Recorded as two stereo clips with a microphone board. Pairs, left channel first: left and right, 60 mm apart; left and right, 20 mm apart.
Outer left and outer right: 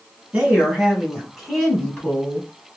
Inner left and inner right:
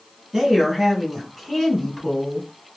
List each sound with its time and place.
0.3 s a woman speaking: 20° right (ahead or behind), 1.6 m; by 2.5 s 15° left (ahead or behind), 1.6 m